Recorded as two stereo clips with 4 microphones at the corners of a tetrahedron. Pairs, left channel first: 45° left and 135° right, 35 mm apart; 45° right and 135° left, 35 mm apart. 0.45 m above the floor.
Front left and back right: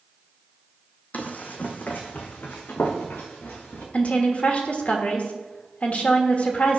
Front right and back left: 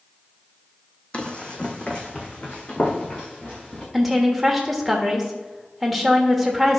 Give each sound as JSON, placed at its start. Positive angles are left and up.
{"t": 1.1, "sound": "running footsteps", "azimuth_deg": 10, "distance_m": 1.1}
{"t": 3.9, "sound": "a woman speaking", "azimuth_deg": 45, "distance_m": 1.4}